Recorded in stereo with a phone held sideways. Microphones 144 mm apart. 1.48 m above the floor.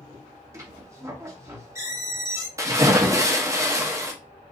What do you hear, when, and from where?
0.5 s a squeak: 20° right (ahead or behind), 1.0 m
2.6 s a splash: 20° right (ahead or behind), 0.9 m